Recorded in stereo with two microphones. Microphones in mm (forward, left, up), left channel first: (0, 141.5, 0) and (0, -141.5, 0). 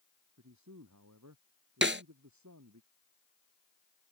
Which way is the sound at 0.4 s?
80° right.